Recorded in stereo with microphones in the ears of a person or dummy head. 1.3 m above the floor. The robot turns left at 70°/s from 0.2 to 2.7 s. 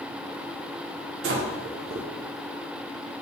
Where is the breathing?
65° right (ahead or behind), 0.6 m; by 2.1 s 25° right (ahead or behind), 0.6 m.